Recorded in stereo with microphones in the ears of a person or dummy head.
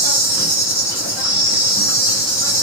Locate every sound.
0.0 s an insect: 10° right (ahead or behind), 1.5 m